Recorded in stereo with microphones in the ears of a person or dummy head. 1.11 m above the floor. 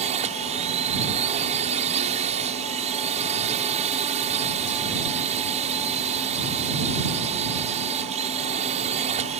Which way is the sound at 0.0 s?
35° right (ahead or behind).